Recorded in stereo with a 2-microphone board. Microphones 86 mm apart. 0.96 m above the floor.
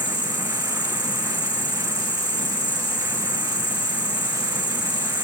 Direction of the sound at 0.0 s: 75° left (ahead or behind).